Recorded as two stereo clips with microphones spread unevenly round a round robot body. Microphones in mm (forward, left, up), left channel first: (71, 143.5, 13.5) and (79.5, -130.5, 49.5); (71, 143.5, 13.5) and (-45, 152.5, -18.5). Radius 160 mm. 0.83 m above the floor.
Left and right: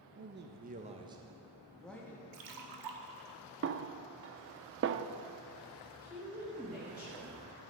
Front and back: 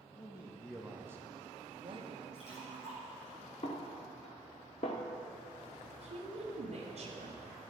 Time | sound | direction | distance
0.1 | a man speaking | 60° right | 0.9 m
2.3 | a splash | 80° right | 1.2 m
3.6 | a snare drum | 45° right | 0.5 m
6.0 | a woman speaking | straight behind | 1.6 m